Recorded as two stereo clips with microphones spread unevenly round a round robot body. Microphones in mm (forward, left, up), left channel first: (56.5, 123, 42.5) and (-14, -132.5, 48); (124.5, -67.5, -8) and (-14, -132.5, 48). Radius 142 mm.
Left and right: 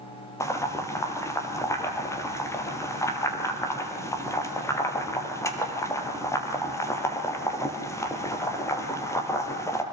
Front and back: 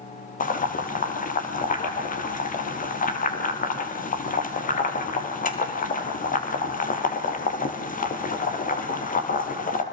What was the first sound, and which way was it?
Boiling, 5° right.